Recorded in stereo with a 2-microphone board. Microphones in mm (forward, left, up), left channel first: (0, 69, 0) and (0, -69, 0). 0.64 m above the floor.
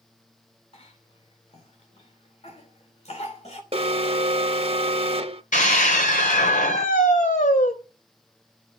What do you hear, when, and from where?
0.7 s a cough: 50° left (ahead or behind), 2.5 m
3.7 s an alarm: 45° right (ahead or behind), 0.9 m
5.5 s a scream: 70° left (ahead or behind), 3.5 m